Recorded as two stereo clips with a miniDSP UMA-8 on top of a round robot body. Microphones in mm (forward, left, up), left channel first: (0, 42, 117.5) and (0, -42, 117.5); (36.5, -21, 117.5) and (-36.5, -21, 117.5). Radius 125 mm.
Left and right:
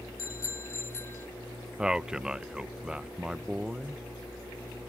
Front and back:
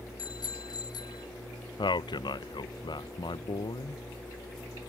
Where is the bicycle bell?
35° left; by 1.3 s 25° left.